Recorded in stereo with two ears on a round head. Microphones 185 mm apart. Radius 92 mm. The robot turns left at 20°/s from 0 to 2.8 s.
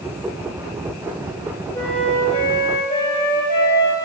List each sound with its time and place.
1.7 s a flute: 5° left (ahead or behind), 5.5 m; by 4.0 s 30° left (ahead or behind), 5.5 m